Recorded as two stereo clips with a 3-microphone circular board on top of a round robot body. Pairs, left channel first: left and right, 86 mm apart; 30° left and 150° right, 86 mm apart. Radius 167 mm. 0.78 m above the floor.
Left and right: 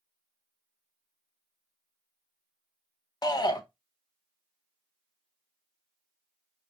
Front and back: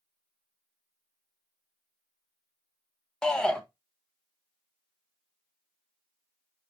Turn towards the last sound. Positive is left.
turn(degrees=110)